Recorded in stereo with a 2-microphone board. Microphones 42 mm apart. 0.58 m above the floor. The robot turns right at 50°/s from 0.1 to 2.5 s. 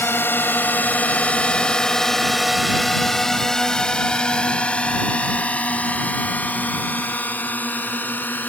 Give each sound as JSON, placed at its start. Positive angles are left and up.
{"t": 0.0, "sound": "a drone", "side_deg": 70}